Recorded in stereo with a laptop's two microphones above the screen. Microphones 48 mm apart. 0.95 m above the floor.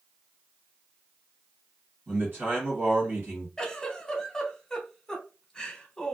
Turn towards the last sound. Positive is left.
turn(degrees=15)  # may be behind; listen again after turning